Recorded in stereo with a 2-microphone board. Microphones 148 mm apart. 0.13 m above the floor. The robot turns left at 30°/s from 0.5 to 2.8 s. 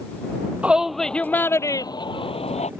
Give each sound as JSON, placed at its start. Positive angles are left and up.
{"t": 0.6, "sound": "a shout", "azimuth_deg": -170}